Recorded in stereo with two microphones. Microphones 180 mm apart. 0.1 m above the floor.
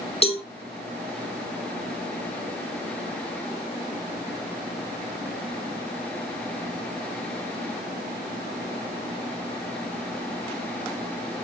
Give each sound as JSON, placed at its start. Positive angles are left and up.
{"t": 0.2, "sound": "a cowbell", "side_deg": 35, "distance_m": 0.5}